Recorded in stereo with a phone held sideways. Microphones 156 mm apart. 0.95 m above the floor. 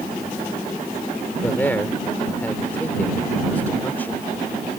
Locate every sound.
1.4 s a man speaking: 10° left (ahead or behind)